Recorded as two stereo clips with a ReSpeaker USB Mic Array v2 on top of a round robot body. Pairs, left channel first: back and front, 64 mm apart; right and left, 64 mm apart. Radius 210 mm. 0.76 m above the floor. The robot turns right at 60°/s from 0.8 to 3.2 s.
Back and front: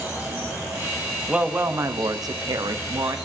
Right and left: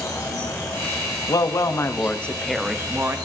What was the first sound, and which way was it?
An insect, 60° right.